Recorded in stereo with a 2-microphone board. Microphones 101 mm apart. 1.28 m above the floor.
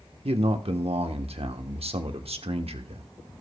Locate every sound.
0.2 s a man speaking: 75° right (ahead or behind), 1.0 m